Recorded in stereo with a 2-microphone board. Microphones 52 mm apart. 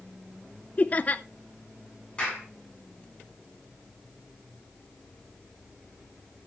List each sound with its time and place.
0.8 s laughter: 35° left (ahead or behind), 0.7 m
2.2 s a clap: 20° left (ahead or behind), 9 m